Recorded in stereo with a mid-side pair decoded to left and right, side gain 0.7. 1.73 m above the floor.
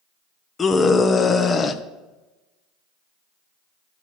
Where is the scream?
25° left, 1.0 m.